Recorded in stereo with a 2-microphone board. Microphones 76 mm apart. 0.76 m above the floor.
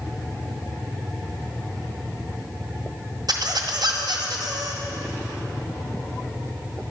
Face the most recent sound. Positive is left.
turn(degrees=-70)  # may be behind; listen again after turning